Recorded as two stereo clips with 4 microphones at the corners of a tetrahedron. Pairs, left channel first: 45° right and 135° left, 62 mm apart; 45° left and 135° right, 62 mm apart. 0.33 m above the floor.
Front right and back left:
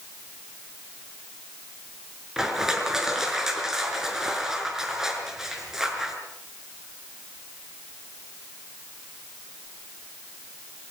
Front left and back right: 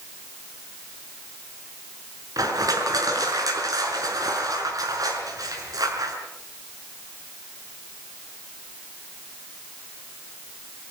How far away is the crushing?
About 5 m.